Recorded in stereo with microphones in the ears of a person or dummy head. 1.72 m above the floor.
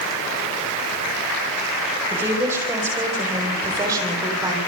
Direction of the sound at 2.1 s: 10° right (ahead or behind).